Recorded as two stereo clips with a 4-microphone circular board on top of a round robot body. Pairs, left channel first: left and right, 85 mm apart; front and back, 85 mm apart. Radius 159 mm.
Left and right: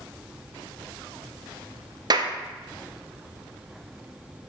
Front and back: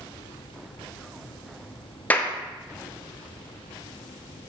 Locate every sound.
2.1 s a clap: 70° right, 0.9 m